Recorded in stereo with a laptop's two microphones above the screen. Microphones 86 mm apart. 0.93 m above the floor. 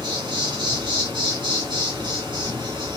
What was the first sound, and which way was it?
An insect, 65° right (ahead or behind).